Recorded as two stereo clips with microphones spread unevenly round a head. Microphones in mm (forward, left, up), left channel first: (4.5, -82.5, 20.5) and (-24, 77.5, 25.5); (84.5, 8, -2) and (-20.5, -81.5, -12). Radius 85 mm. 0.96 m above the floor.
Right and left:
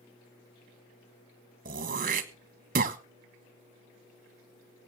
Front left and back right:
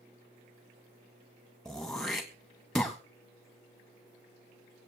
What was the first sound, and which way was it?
Throat clearing, 130° left.